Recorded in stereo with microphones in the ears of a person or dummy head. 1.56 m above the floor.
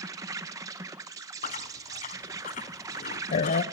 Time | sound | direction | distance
0.0 | an insect | 15° right (ahead or behind) | 1.0 m
1.4 | chewing | 35° left (ahead or behind) | 1.0 m